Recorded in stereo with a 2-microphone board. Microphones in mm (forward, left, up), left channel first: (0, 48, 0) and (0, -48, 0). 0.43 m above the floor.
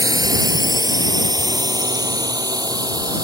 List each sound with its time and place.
0.0 s a drone: 40° right (ahead or behind)